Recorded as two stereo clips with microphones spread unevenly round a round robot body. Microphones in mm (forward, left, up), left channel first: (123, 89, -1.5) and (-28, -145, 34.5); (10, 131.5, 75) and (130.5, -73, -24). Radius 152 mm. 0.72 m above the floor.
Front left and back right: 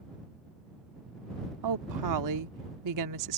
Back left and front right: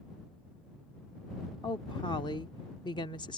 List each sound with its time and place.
1.6 s a woman speaking: 155° right